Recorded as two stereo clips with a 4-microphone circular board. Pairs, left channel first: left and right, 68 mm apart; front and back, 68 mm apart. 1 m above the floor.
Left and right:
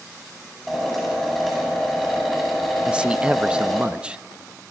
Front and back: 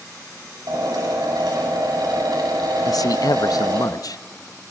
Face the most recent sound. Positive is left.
turn(degrees=-15)